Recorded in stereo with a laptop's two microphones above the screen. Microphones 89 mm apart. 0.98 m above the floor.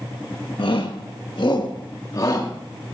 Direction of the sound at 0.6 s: 65° left (ahead or behind).